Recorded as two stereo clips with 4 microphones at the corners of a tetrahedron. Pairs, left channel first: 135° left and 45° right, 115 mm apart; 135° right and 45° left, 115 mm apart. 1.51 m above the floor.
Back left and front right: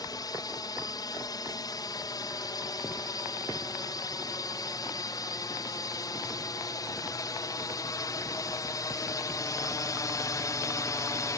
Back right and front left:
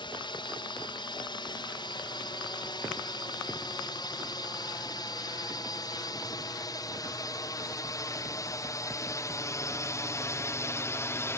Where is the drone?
175° right; by 11.4 s 175° left.